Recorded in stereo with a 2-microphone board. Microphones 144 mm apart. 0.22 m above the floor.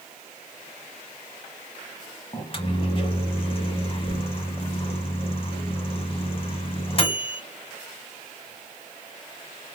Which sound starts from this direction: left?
A microwave, at 2.3 s.